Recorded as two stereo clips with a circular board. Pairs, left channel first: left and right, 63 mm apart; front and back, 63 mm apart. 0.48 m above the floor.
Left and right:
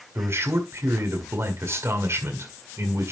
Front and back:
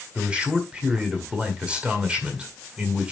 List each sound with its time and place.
0.1 s a man speaking: 115° right, 1.8 m